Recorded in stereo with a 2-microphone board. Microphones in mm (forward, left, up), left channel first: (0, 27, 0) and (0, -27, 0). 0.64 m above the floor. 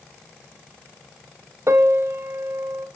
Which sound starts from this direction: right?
A piano, at 1.7 s.